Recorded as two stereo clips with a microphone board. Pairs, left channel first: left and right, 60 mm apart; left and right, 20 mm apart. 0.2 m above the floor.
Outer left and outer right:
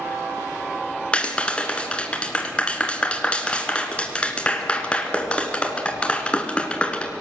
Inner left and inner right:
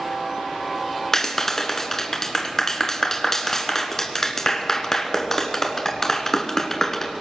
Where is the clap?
20° left (ahead or behind), 1.8 m.